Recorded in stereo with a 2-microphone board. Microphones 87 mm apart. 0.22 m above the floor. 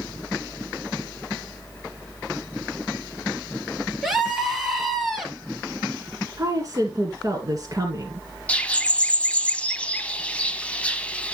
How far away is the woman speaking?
About 2 m.